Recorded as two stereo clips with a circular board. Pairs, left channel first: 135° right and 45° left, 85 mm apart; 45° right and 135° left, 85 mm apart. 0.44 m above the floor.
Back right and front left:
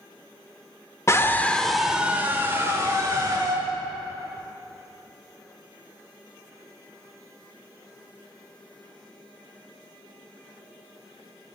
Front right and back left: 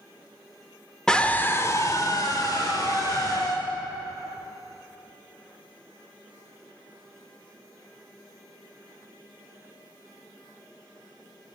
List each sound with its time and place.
1.1 s a scream: 120° right, 1.0 m; by 3.6 s 5° right, 2.5 m